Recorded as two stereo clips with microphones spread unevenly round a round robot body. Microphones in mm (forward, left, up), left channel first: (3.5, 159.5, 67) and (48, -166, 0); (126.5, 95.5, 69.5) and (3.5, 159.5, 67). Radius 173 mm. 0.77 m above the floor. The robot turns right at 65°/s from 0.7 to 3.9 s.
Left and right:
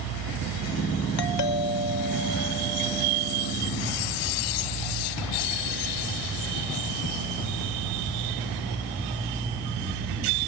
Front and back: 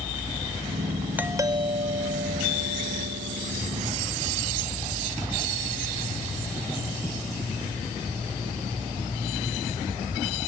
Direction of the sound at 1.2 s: 75° left.